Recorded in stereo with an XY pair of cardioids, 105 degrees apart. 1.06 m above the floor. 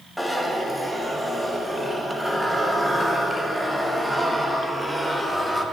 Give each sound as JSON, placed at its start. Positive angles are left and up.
{"t": 0.2, "sound": "a zipper", "azimuth_deg": 0, "distance_m": 0.9}